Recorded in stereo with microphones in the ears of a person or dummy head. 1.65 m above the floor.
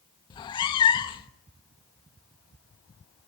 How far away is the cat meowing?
About 1.1 m.